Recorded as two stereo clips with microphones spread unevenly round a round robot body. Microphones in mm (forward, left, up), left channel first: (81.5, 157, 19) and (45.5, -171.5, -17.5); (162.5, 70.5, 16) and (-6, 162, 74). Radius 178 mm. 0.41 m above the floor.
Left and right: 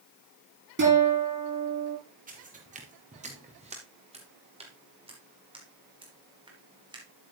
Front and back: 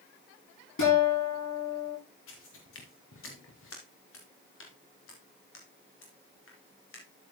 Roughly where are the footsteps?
Ahead right.